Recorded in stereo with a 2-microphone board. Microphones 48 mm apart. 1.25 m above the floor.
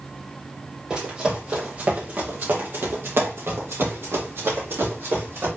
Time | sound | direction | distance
0.9 | running footsteps | 20° right (ahead or behind) | 2.5 m